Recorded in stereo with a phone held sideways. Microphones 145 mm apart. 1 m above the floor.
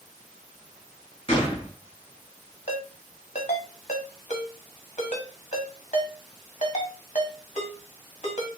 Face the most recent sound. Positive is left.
turn(degrees=55)  # may be behind; listen again after turning